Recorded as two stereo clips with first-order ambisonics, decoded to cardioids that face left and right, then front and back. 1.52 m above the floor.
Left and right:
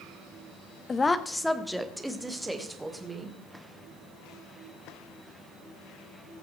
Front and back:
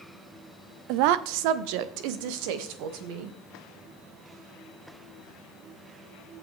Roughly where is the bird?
I don't hear a bird.